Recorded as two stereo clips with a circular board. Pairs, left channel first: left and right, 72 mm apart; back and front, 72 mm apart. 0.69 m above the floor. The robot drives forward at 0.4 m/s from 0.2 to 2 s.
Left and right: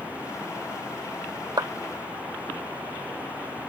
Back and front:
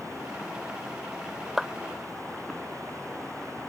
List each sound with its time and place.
1.6 s a clap: 85° right